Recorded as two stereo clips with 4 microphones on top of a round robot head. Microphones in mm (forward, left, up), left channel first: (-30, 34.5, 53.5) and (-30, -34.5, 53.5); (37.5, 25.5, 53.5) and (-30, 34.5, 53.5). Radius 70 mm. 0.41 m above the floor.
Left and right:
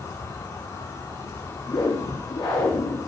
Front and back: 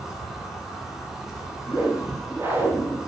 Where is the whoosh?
110° left, 5 m.